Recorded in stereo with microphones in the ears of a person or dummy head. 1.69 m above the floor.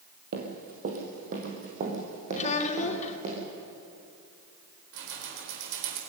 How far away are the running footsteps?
About 3.5 m.